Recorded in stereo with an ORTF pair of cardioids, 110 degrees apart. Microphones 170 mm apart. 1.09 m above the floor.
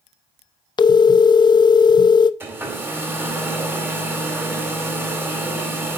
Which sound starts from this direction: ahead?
A hair dryer, at 2.4 s.